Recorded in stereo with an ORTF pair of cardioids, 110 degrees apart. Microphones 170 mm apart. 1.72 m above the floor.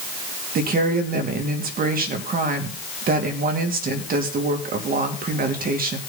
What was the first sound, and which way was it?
A woman speaking, 50° right.